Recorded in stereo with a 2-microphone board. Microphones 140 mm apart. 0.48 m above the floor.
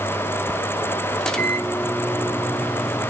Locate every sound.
1.2 s a microwave: 5° left (ahead or behind), 0.9 m